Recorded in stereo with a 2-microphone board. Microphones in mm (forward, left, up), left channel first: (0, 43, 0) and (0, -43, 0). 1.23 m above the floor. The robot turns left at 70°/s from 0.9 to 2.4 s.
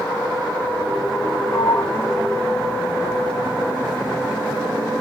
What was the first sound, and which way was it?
A sliding door, 60° left (ahead or behind).